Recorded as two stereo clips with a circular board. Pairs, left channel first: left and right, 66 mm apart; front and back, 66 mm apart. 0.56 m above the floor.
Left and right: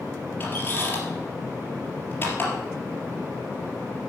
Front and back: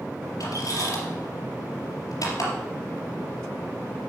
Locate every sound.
0.4 s a squeak: 30° left, 3 m